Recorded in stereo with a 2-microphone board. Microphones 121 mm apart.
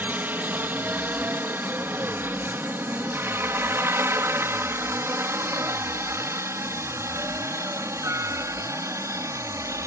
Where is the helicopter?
15° right (ahead or behind); by 9.9 s 25° right (ahead or behind).